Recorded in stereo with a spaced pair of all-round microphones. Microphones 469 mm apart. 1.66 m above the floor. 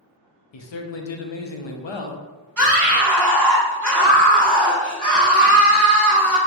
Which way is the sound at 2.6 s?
40° right (ahead or behind).